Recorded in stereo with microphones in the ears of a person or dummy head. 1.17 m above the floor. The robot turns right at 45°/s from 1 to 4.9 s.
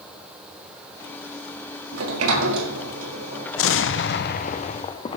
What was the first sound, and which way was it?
A sliding door, 100° right.